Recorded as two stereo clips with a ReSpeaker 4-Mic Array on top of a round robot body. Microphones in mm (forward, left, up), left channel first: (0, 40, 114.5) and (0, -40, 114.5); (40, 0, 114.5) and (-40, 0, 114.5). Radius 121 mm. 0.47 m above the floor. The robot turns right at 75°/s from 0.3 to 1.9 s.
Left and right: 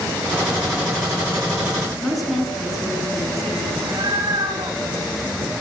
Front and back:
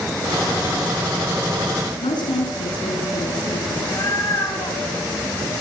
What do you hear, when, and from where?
2.0 s a woman speaking: straight ahead, 8 m
3.8 s a cat meowing: 50° right, 10 m